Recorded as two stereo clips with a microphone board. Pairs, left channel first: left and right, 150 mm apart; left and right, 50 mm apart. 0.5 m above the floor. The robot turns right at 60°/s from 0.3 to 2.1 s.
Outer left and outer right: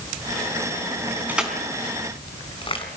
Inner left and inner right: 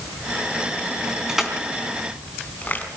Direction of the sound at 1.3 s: 10° right (ahead or behind).